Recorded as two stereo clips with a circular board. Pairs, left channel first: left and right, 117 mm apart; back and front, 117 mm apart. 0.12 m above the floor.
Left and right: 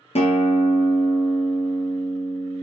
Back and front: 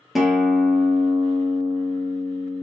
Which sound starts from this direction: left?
A guitar, at 0.1 s.